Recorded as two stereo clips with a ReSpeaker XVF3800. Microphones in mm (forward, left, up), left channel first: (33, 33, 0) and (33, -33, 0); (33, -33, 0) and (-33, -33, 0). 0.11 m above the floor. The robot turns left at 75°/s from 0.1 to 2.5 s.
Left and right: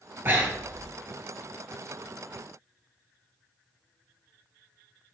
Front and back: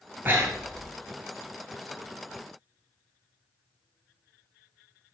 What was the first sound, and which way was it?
Breathing, 130° right.